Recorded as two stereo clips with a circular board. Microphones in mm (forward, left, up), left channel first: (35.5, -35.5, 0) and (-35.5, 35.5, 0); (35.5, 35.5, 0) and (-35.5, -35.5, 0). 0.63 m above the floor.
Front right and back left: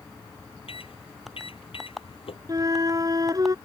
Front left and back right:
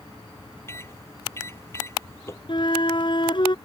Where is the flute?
80° left.